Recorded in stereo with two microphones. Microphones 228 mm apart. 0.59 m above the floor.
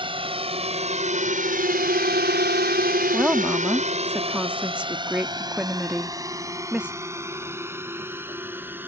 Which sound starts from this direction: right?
A drone, at 0.0 s.